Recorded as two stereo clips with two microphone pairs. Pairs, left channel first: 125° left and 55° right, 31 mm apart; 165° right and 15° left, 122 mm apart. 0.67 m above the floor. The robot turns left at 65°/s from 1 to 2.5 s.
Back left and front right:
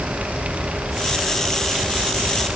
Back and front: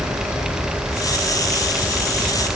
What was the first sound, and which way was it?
Only background noise.